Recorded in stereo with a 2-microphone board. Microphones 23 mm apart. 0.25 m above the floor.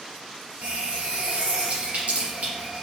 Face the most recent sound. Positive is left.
turn(degrees=-75)  # may be behind; listen again after turning